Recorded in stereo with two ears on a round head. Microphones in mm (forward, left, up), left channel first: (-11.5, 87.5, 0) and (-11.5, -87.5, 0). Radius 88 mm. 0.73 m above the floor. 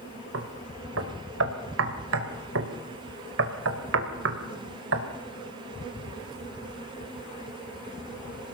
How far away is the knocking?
About 2.5 m.